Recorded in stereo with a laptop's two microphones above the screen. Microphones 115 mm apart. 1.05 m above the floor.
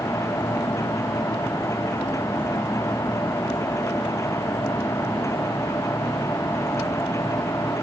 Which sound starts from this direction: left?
A machine running, at 0.0 s.